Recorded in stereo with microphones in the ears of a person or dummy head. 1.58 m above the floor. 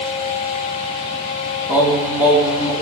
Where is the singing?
10° right (ahead or behind), 2.0 m.